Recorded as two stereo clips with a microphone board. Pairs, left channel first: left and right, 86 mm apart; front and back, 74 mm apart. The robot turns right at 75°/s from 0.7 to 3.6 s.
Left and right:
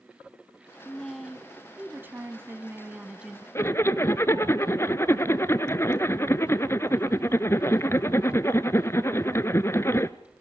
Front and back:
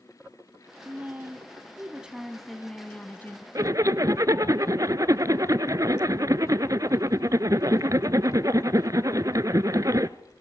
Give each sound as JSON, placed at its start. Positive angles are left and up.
{"t": 0.8, "sound": "a woman speaking", "azimuth_deg": 155, "distance_m": 1.1}
{"t": 3.5, "sound": "a zipper", "azimuth_deg": 145, "distance_m": 0.6}